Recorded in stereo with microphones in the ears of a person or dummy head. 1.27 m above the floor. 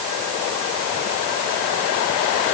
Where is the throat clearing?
I don't hear throat clearing.